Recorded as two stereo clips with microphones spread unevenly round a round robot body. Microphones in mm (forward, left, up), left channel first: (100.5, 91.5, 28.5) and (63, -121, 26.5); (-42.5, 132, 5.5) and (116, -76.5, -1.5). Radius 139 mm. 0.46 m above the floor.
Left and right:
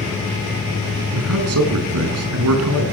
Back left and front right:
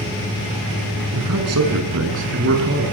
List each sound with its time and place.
1.1 s a man speaking: 90° right, 5.5 m; by 2.8 s 110° right, 6.5 m